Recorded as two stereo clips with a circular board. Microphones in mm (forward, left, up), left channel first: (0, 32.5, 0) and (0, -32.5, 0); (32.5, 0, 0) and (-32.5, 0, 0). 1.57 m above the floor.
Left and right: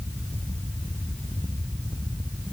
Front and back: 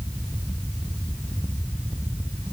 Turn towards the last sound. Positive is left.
No sound to turn to.